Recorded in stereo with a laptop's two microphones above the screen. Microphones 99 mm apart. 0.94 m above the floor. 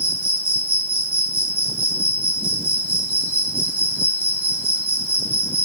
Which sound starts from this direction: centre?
An insect, at 0.0 s.